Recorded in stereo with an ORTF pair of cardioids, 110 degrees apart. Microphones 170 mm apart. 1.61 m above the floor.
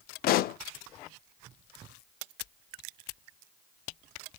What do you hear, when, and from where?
0.2 s a pop: 60° left, 0.5 m